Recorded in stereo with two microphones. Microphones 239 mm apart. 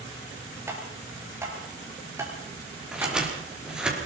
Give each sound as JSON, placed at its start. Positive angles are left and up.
{"t": 0.7, "sound": "tapping", "side_deg": -10, "distance_m": 6.0}
{"t": 2.9, "sound": "scissors", "side_deg": -5, "distance_m": 5.5}